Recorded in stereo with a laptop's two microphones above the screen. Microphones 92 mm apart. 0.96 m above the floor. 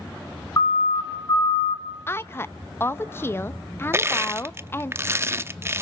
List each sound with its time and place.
0.6 s a siren: 35° left (ahead or behind), 2.5 m; by 1.8 s 60° left (ahead or behind), 2 m
2.1 s a woman speaking: 25° left (ahead or behind), 0.7 m
3.9 s crushing: 25° right (ahead or behind), 0.7 m